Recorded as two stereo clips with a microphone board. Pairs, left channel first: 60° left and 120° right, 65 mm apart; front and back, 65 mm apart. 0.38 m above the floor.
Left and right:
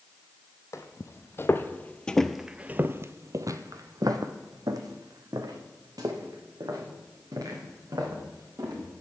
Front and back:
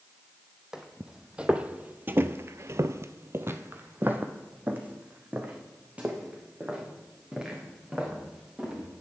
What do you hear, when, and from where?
0.7 s footsteps: 100° left, 1.0 m; by 8.9 s 105° right, 3 m